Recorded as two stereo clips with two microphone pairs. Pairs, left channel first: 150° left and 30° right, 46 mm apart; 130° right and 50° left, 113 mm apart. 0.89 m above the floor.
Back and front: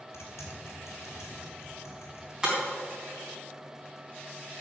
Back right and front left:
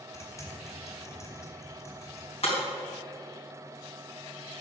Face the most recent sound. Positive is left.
turn(degrees=-100)